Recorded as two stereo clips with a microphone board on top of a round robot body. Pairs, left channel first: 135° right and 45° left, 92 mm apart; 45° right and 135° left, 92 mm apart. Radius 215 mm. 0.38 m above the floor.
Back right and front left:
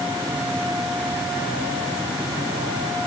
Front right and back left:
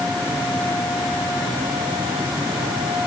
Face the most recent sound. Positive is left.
No sound to turn to.